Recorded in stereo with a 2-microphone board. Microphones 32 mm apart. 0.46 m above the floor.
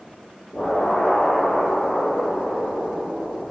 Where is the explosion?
60° left (ahead or behind), 1.9 m.